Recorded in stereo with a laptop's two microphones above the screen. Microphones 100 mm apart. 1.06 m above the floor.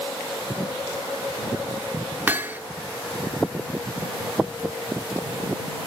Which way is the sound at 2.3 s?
20° right (ahead or behind).